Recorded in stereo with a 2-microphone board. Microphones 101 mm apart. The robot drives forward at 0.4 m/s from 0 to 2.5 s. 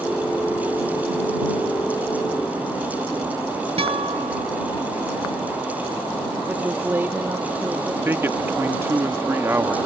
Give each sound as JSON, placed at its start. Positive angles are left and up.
{"t": 3.8, "sound": "a guitar", "side_deg": -75}
{"t": 6.5, "sound": "a woman speaking", "side_deg": -20}
{"t": 8.1, "sound": "a man speaking", "side_deg": -25}